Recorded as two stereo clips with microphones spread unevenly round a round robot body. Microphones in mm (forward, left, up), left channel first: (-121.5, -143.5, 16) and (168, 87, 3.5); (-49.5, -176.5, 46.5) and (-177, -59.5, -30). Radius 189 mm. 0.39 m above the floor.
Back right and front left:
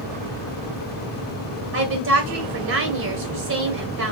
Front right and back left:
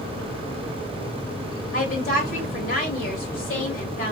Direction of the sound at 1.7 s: 10° left.